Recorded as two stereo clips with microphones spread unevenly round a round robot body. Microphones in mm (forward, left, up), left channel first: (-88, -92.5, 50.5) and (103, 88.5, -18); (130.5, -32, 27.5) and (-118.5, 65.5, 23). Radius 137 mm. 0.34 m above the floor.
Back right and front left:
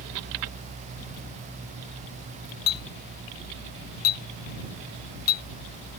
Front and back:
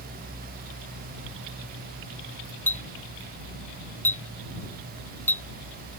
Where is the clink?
105° right.